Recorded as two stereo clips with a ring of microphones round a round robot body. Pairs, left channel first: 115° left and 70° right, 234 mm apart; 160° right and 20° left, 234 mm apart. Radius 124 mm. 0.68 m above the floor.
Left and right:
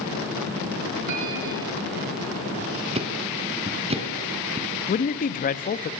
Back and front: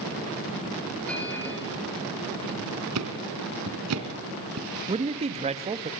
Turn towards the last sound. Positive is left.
turn(degrees=75)